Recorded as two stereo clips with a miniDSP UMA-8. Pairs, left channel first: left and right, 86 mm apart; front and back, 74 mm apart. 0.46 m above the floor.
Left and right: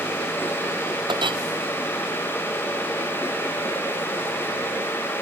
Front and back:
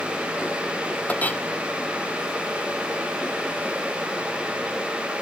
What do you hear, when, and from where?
1.1 s a clink: 70° right